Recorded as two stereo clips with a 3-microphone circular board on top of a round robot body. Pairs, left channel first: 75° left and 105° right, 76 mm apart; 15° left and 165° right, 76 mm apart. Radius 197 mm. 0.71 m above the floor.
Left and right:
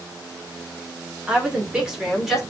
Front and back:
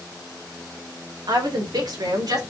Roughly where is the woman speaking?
Behind.